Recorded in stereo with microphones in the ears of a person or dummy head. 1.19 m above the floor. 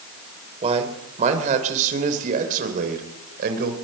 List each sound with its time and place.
0.6 s a man speaking: 35° right (ahead or behind), 4 m; by 3.8 s 55° right (ahead or behind), 4 m